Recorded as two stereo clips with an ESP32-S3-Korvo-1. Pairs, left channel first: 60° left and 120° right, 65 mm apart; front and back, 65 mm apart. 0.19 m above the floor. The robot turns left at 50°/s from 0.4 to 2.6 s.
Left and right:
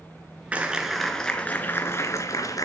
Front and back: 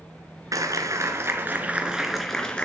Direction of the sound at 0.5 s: 175° left.